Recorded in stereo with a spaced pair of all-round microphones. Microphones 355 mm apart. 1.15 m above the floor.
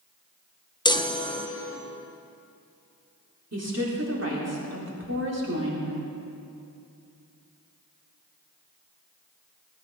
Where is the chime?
10° left (ahead or behind), 0.8 m.